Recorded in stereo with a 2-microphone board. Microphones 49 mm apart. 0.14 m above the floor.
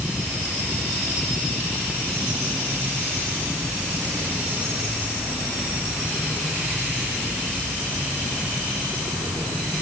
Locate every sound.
Only background noise.